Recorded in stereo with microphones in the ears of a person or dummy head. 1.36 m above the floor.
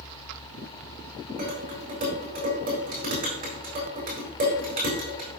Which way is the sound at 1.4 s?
45° right (ahead or behind).